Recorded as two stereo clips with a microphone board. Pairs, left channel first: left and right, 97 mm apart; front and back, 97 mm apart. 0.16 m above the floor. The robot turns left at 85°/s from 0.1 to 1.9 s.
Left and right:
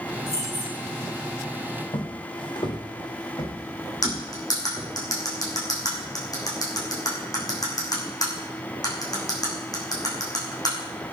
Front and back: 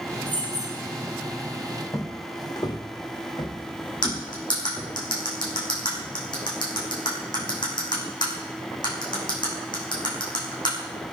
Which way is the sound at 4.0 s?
40° left.